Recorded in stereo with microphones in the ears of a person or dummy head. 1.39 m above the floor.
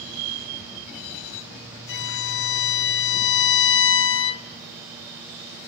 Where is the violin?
65° left (ahead or behind), 0.6 m.